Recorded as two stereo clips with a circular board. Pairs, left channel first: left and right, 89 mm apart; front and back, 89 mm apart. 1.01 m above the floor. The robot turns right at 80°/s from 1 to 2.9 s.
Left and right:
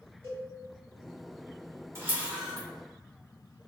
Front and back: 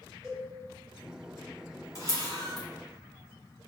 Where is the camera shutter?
40° right, 1.2 m; by 2.7 s 15° left, 1.2 m.